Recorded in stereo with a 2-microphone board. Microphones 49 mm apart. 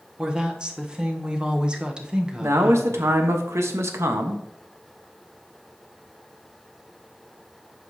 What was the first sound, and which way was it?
A woman speaking, 20° right (ahead or behind).